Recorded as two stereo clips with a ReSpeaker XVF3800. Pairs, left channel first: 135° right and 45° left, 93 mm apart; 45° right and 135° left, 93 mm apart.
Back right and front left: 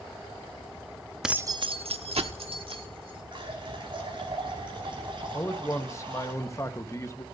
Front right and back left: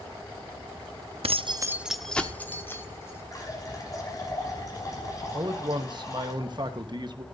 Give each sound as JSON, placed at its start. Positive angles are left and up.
{"t": 1.2, "sound": "keys jangling", "azimuth_deg": 130, "distance_m": 0.7}
{"t": 3.3, "sound": "a running tap", "azimuth_deg": 10, "distance_m": 5.5}
{"t": 5.3, "sound": "a man speaking", "azimuth_deg": 170, "distance_m": 1.2}